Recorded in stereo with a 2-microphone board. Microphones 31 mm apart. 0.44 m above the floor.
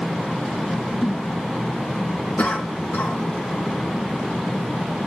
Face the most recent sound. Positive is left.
turn(degrees=60)  # may be behind; listen again after turning